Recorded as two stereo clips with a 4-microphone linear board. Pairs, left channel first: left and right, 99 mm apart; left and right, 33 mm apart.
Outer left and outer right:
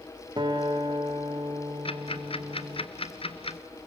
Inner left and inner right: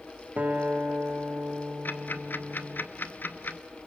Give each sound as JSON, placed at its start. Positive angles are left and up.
{"t": 0.4, "sound": "a guitar", "side_deg": -50, "distance_m": 2.0}
{"t": 1.9, "sound": "ticking", "side_deg": 75, "distance_m": 1.1}